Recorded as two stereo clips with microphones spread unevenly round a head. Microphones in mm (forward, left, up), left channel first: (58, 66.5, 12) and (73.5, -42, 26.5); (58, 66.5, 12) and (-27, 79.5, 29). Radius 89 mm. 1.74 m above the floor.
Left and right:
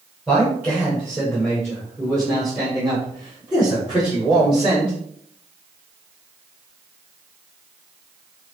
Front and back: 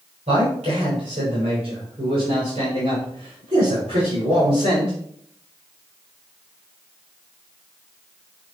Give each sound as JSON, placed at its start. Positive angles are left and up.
{"t": 0.3, "sound": "a man speaking", "azimuth_deg": -165, "distance_m": 7.0}